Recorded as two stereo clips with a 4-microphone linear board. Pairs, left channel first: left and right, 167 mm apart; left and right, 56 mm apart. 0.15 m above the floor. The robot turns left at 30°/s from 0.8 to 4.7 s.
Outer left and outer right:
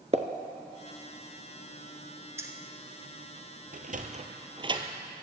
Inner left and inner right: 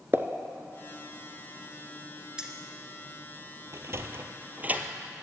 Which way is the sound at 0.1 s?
40° right (ahead or behind).